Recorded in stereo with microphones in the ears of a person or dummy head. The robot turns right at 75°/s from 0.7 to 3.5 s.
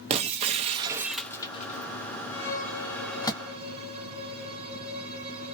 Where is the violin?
120° left, 1.0 m; by 5.5 s 150° right, 1.0 m.